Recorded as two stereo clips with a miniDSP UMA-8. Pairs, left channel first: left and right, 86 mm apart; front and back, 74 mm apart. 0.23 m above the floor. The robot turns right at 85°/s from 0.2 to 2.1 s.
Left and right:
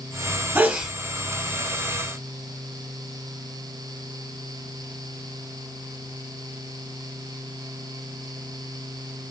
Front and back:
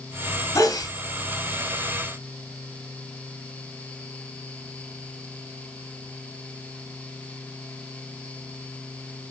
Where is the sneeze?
35° right, 2.5 m; by 0.9 s 5° right, 2.5 m.